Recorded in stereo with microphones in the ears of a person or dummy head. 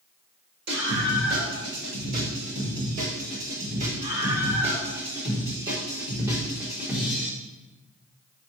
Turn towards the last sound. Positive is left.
turn(degrees=-5)  # may be behind; listen again after turning